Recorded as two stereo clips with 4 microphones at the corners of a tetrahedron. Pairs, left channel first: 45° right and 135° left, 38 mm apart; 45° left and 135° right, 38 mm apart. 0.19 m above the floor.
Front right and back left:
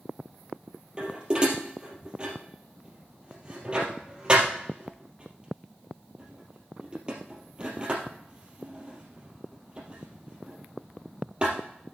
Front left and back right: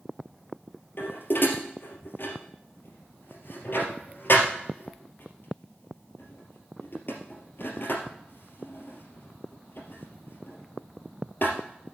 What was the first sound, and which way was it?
Dishes clattering, 70° left.